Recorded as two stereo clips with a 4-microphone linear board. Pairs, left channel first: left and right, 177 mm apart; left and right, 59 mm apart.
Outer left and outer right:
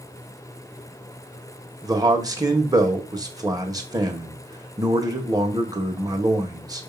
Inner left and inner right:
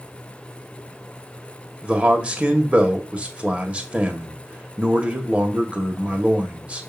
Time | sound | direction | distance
1.8 | a man speaking | 20° right (ahead or behind) | 1.4 m